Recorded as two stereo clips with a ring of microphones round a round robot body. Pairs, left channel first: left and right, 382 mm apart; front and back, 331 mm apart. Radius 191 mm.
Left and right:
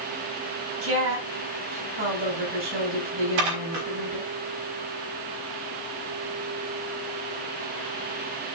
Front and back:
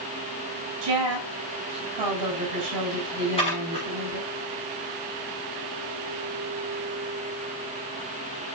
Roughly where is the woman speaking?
Behind right.